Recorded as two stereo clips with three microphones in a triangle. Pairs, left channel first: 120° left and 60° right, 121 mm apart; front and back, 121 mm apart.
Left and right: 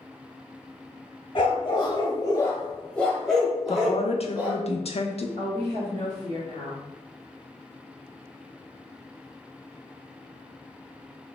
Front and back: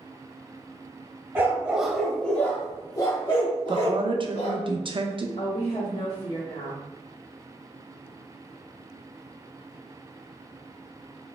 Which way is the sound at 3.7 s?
140° left.